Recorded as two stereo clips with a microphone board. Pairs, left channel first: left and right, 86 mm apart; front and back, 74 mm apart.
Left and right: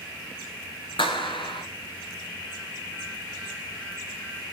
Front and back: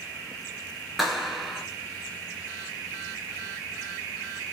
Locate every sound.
1.0 s a clap: 90° left, 3 m